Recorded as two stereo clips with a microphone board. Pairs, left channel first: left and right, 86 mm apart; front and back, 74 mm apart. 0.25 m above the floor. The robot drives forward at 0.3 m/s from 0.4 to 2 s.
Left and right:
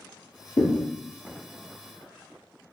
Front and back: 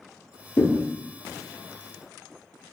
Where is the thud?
50° left, 0.8 m; by 0.8 s 55° left, 0.8 m.